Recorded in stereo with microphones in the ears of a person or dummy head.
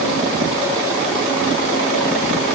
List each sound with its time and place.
Only background noise.